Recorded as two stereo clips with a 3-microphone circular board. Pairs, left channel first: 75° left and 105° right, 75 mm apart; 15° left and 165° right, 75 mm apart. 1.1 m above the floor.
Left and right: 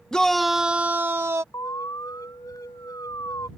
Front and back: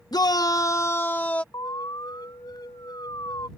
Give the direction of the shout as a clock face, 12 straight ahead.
12 o'clock.